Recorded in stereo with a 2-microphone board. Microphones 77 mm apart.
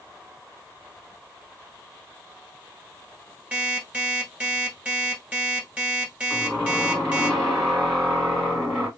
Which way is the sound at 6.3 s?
Centre (ahead or behind).